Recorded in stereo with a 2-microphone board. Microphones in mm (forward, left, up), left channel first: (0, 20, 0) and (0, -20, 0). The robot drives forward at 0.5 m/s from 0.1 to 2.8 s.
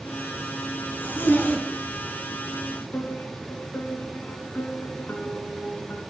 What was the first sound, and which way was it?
A zipper, 50° left (ahead or behind).